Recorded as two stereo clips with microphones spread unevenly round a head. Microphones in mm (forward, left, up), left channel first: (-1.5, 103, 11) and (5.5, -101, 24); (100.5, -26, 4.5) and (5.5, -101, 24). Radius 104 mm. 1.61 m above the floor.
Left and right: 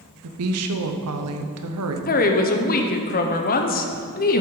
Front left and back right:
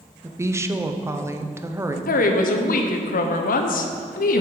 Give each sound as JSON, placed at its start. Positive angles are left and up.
{"t": 0.2, "sound": "a woman speaking", "azimuth_deg": -75, "distance_m": 0.8}
{"t": 2.1, "sound": "a woman speaking", "azimuth_deg": 40, "distance_m": 0.7}